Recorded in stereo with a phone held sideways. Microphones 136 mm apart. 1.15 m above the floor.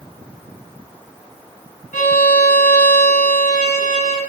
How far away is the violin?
About 2.5 m.